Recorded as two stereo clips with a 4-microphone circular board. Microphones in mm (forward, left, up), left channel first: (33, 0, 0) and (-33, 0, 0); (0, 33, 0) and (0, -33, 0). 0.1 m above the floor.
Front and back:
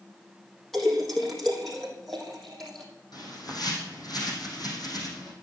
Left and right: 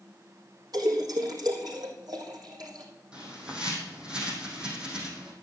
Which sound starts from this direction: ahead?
A bird, at 3.1 s.